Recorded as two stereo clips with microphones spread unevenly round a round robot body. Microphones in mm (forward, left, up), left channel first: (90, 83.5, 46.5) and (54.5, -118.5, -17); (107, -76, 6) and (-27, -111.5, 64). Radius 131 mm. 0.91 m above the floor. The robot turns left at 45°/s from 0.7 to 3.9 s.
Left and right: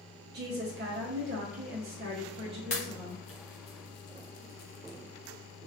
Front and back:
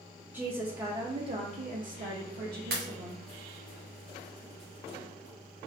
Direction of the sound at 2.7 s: 150° left.